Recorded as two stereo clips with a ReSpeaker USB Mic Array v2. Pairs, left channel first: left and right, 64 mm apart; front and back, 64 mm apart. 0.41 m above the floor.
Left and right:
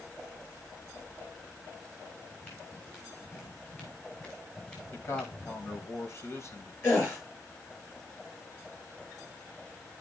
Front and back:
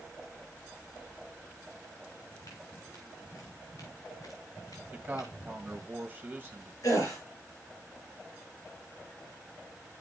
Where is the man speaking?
130° left, 2 m.